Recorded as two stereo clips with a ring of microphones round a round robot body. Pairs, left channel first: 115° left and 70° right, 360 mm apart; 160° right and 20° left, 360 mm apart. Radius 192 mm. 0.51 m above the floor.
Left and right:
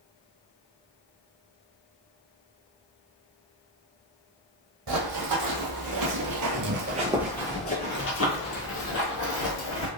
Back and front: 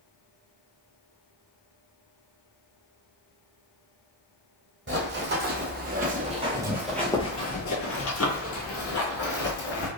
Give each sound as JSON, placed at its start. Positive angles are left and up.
{"t": 4.9, "sound": "running footsteps", "azimuth_deg": -35, "distance_m": 1.3}